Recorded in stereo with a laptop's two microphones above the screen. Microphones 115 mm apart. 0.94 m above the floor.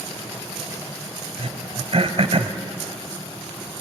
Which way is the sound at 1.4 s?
60° right (ahead or behind).